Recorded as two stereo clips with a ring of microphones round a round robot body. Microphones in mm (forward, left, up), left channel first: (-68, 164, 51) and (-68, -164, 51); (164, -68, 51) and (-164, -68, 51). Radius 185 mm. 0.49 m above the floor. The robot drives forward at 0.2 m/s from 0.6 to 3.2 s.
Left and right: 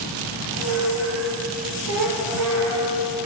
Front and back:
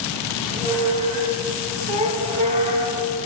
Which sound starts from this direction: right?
A squeak, at 0.3 s.